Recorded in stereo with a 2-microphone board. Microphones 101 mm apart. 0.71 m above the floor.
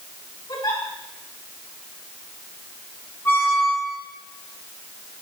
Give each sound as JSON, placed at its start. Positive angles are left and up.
{"t": 0.5, "sound": "a giggle", "side_deg": 50, "distance_m": 5.0}
{"t": 3.2, "sound": "a squeak", "side_deg": 25, "distance_m": 7.0}